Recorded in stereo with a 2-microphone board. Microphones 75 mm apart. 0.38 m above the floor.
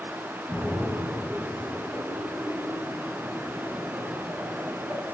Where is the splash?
15° right (ahead or behind), 6.5 m.